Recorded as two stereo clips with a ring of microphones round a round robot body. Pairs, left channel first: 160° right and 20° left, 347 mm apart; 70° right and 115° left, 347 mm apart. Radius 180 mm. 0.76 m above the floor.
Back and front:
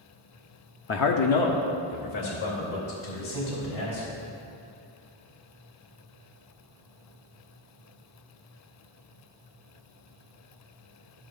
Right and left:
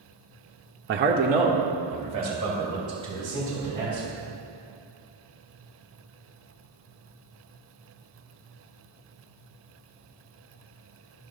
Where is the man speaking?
155° left, 0.5 m; by 4.2 s 170° right, 5.5 m.